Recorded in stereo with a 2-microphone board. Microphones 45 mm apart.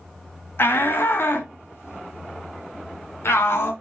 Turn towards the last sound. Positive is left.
turn(degrees=70)  # may be behind; listen again after turning